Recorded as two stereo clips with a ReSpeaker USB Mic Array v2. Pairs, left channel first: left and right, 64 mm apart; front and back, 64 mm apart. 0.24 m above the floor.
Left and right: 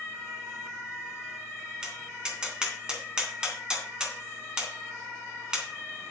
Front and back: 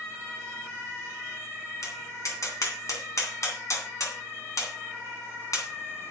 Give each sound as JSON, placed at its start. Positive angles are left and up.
{"t": 1.8, "sound": "tapping", "azimuth_deg": -15, "distance_m": 3.0}